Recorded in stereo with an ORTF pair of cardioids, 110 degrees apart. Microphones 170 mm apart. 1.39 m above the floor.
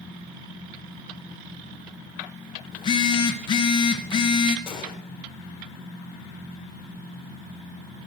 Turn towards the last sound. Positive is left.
turn(degrees=30)